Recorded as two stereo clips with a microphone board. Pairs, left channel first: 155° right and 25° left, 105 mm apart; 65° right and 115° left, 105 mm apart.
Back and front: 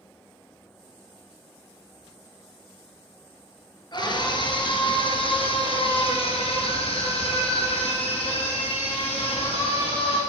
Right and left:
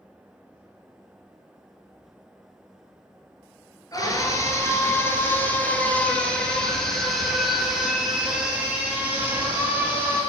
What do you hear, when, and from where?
3.9 s a scream: 115° right, 3 m; by 10.2 s straight behind, 4 m